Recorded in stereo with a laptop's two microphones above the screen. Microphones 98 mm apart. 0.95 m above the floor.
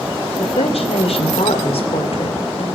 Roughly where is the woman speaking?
Left.